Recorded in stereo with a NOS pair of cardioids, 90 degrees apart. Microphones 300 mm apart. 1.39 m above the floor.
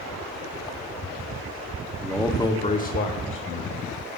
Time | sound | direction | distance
2.0 | a man speaking | 5° right | 1.1 m